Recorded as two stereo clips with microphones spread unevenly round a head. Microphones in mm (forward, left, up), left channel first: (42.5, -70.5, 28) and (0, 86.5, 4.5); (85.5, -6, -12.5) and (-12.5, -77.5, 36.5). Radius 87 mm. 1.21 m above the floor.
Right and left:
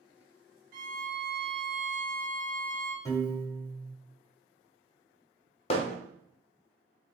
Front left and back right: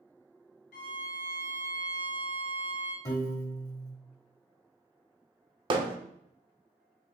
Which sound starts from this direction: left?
A violin, at 0.7 s.